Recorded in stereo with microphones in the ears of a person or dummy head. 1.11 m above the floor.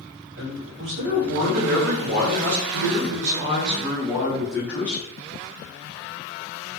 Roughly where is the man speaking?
Right.